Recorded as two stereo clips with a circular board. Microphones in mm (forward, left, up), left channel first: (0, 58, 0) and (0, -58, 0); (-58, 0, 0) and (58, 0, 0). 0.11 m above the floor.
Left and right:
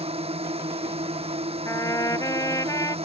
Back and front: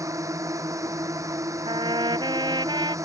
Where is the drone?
60° right.